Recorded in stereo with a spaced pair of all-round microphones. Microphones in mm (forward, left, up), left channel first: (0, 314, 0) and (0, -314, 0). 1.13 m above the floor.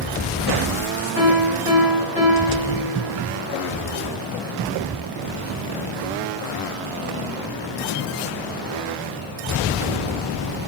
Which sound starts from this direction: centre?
A piano, at 1.1 s.